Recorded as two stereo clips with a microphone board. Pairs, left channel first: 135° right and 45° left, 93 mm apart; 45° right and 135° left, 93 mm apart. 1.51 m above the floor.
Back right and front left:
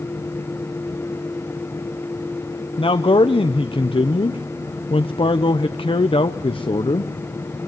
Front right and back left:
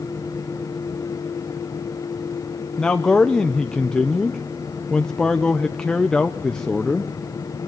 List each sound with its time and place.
2.8 s a man speaking: 125° right, 0.9 m